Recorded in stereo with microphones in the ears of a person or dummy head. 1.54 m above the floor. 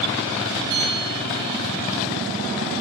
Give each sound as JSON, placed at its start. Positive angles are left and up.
{"t": 0.7, "sound": "a bell", "side_deg": -25, "distance_m": 10.0}